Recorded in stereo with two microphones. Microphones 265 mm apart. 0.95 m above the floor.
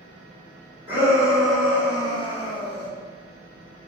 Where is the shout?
10° right (ahead or behind), 1.5 m; by 2.9 s 50° left (ahead or behind), 0.7 m.